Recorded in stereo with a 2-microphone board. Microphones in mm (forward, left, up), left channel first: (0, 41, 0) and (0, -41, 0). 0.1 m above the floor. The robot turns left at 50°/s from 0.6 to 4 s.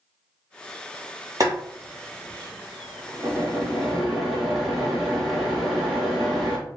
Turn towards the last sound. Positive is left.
turn(degrees=0)  # may be behind; listen again after turning